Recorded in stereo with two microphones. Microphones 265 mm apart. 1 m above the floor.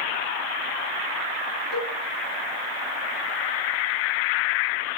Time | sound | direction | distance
1.7 | a cowbell | 40° right (ahead or behind) | 2.5 m